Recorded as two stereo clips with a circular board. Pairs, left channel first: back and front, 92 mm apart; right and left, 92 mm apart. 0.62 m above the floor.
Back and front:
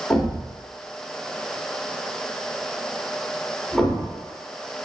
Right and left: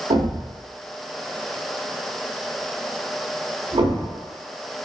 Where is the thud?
95° left, 0.8 m.